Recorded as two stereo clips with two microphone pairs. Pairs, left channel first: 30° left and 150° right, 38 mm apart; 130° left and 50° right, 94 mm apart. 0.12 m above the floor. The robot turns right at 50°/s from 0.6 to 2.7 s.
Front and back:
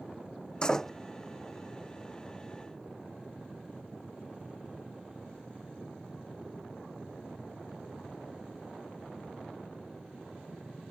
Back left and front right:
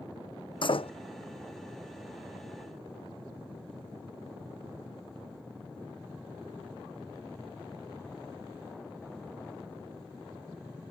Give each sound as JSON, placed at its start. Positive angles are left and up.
{"t": 0.6, "sound": "a door slam", "azimuth_deg": 100}